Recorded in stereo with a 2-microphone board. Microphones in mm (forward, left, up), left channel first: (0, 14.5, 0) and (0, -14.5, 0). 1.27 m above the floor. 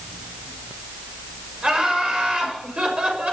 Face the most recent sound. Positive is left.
turn(degrees=-40)  # may be behind; listen again after turning